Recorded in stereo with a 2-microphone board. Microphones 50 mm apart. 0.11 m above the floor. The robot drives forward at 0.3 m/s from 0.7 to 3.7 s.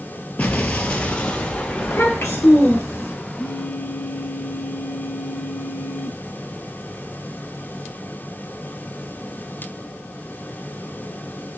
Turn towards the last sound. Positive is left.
turn(degrees=55)  # may be behind; listen again after turning